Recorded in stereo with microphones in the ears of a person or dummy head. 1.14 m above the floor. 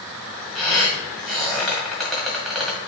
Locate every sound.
0.6 s a squeak: centre (ahead or behind), 1.8 m